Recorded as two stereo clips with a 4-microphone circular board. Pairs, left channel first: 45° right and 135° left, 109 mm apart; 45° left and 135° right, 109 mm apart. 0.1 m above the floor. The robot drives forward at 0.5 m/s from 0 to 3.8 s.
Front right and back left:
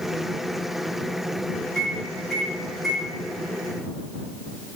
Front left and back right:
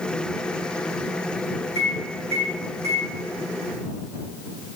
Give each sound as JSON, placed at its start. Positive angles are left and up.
{"t": 1.8, "sound": "a microwave", "azimuth_deg": -125, "distance_m": 3.0}